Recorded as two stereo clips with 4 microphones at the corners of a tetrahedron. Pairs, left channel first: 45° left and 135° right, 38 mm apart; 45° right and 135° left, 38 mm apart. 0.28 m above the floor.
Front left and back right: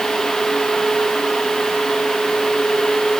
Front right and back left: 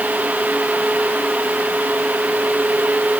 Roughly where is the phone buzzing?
No phone buzzing in this recording.